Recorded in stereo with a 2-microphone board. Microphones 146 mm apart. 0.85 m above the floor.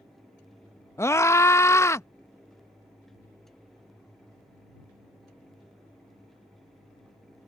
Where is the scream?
20° left (ahead or behind).